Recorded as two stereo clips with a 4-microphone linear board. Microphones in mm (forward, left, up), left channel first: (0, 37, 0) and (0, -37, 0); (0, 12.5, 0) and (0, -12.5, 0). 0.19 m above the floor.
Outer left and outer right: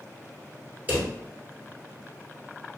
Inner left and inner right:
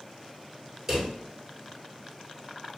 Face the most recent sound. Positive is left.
turn(degrees=-20)  # may be behind; listen again after turning